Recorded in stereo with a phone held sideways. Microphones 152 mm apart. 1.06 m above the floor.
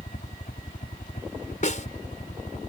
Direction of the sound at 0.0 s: 55° left (ahead or behind).